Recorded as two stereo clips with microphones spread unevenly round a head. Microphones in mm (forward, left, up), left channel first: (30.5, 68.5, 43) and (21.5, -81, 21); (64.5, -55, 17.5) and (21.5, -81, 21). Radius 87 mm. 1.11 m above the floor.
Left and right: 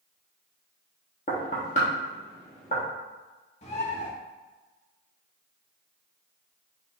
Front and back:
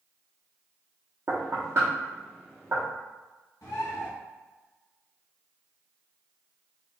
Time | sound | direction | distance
1.3 | knocking | 135° left | 1.1 m
3.6 | a bird | 40° left | 1.0 m